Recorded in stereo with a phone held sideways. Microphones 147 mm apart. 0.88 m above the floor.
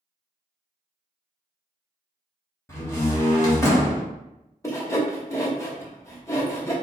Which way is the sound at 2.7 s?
20° left (ahead or behind).